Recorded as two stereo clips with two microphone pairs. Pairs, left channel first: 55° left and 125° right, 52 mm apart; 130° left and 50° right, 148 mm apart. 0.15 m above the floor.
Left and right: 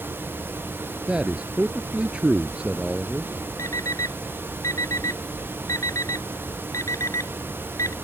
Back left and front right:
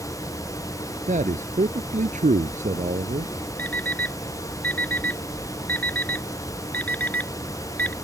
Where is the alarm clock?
50° left.